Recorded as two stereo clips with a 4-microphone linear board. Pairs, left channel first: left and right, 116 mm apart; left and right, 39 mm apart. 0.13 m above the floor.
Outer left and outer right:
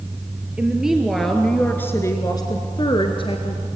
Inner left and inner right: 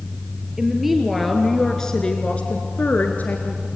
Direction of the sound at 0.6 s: 10° right (ahead or behind).